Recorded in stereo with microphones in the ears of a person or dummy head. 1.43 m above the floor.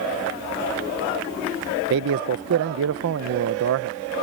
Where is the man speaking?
65° right (ahead or behind).